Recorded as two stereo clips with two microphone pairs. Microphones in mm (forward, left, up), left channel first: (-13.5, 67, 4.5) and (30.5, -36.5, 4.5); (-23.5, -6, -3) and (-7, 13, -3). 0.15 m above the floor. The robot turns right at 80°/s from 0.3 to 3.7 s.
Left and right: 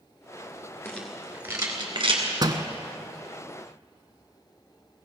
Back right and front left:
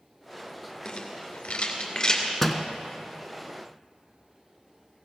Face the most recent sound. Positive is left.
turn(degrees=45)